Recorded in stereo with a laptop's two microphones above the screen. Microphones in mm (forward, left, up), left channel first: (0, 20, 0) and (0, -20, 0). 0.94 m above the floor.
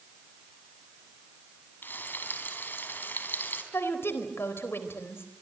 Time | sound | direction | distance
1.8 | frying | 55° left (ahead or behind) | 4 m
3.7 | a woman speaking | 75° left (ahead or behind) | 4 m